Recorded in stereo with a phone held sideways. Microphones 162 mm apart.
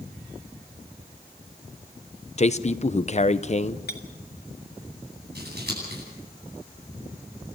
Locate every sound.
2.4 s a man speaking: 45° left (ahead or behind), 0.8 m
3.9 s a clink: 85° left, 2 m
5.3 s scissors: 85° right, 9.5 m